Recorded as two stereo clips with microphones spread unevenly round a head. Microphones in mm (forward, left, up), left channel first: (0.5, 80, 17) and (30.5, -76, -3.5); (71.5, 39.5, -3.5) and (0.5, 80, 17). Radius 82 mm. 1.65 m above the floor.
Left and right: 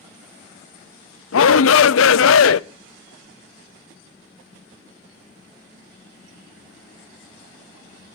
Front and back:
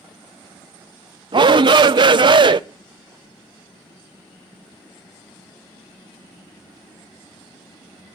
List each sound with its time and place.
1.3 s a shout: 115° left, 0.6 m